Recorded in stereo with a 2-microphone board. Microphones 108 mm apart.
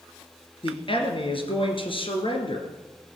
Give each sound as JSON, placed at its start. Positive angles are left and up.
{"t": 0.6, "sound": "a man speaking", "side_deg": 55, "distance_m": 2.5}